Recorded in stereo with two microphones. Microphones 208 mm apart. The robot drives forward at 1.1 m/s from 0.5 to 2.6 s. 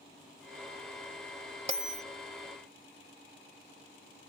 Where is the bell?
30° right (ahead or behind); by 2.0 s 35° right (ahead or behind).